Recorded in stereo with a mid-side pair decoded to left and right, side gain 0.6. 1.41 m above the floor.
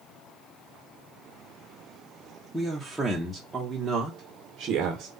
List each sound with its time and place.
2.5 s a man speaking: straight ahead, 1.7 m; by 5.1 s 55° right, 1.5 m